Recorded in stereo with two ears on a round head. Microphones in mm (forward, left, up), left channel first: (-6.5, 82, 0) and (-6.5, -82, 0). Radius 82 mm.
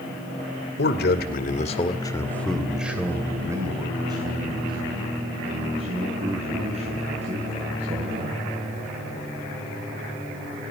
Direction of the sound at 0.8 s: 60° left (ahead or behind).